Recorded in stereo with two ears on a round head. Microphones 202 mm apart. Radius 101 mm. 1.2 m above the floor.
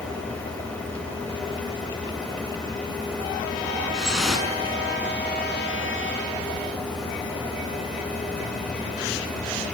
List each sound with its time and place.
3.9 s dripping: centre (ahead or behind), 5.5 m